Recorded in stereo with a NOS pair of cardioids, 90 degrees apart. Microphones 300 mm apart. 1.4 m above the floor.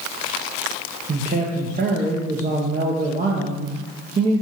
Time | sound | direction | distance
1.1 | a man speaking | 30° right | 0.7 m